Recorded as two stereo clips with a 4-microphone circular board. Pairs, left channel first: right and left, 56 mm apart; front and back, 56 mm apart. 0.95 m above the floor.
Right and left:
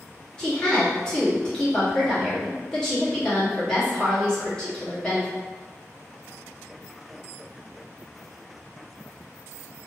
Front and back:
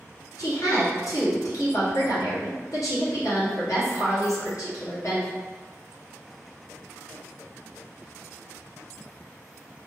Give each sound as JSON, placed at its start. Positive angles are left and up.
{"t": 0.4, "sound": "a woman speaking", "azimuth_deg": -15, "distance_m": 1.3}